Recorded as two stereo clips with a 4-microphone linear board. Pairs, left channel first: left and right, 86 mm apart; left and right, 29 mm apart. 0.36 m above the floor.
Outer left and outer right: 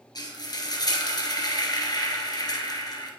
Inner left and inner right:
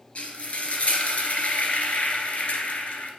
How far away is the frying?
About 2 m.